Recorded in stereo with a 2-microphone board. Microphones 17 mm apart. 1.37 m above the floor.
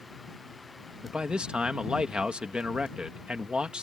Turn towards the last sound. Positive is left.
turn(degrees=-65)  # may be behind; listen again after turning